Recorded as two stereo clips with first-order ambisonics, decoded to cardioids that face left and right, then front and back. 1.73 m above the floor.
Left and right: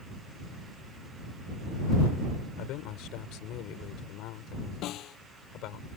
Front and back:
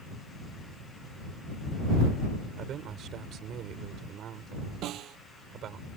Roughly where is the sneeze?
I don't hear a sneeze.